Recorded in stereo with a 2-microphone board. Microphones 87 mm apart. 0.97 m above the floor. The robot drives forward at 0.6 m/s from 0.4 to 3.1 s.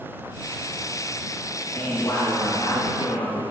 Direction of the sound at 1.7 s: 35° left (ahead or behind).